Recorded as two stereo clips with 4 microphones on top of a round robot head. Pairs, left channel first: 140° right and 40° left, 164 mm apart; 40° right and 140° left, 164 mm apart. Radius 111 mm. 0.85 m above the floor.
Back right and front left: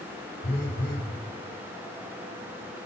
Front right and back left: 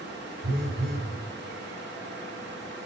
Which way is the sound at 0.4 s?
165° left.